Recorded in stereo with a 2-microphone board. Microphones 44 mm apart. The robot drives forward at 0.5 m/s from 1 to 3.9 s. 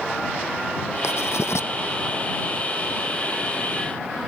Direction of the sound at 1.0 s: 85° left.